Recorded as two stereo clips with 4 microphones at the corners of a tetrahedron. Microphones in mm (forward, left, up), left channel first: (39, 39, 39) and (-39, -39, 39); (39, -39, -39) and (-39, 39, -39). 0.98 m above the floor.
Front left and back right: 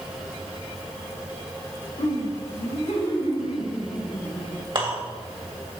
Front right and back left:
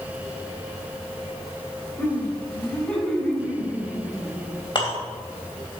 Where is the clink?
95° right, 3 m.